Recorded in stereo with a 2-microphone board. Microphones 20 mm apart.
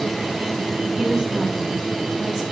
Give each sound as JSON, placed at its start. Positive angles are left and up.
{"t": 1.0, "sound": "a woman speaking", "side_deg": -25, "distance_m": 8.0}